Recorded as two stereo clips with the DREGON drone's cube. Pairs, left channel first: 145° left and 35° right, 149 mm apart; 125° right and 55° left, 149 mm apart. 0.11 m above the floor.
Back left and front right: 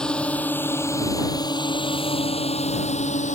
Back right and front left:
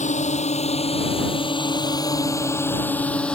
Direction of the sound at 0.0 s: 130° right.